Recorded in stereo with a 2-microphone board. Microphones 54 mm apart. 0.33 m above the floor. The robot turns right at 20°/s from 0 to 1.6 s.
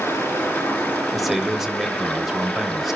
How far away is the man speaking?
About 1.1 m.